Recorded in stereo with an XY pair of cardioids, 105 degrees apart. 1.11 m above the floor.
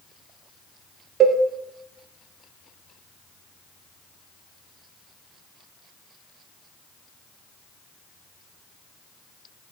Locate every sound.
1.2 s a cowbell: 50° right, 0.5 m